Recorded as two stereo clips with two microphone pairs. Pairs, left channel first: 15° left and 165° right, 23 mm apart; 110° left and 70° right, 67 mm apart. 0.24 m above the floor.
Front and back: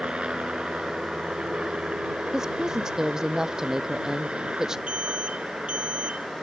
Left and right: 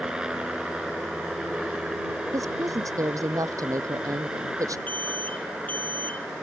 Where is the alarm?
175° left.